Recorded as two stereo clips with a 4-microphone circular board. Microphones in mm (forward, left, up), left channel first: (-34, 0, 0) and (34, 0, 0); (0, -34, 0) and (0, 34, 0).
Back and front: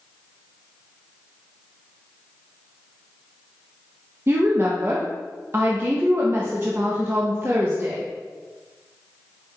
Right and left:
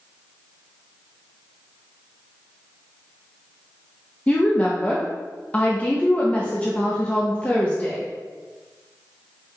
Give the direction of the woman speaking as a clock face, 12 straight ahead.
1 o'clock.